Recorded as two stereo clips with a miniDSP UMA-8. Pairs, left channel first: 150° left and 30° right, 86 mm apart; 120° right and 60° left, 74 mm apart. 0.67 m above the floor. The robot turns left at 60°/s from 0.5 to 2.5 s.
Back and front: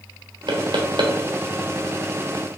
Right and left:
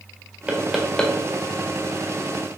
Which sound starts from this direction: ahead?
Knocking, at 0.5 s.